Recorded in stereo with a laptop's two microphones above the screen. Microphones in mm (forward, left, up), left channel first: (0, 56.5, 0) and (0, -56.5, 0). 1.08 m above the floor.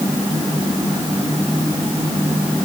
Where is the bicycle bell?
I don't hear a bicycle bell.